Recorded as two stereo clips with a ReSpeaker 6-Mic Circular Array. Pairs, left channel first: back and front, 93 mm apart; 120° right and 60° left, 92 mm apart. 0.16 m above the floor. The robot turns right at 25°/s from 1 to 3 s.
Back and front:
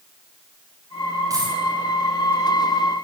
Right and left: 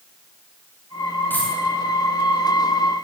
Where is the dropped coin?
50° right, 9.5 m; by 1.6 s 45° right, 9.5 m.